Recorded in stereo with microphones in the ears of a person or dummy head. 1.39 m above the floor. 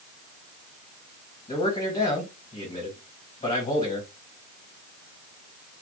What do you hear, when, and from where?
1.5 s a man speaking: 35° left (ahead or behind), 1.5 m